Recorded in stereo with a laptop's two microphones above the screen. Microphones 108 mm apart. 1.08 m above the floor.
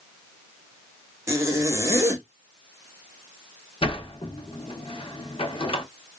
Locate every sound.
1.3 s a zipper: 25° right (ahead or behind), 1.1 m
3.8 s a sliding door: 60° left (ahead or behind), 0.9 m